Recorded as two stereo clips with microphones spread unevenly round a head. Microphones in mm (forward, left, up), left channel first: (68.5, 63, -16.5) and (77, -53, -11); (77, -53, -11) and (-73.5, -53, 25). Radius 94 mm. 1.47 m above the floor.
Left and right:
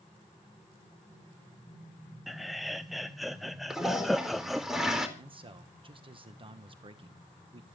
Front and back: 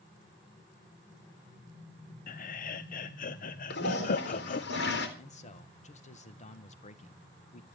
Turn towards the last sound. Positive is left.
turn(degrees=-40)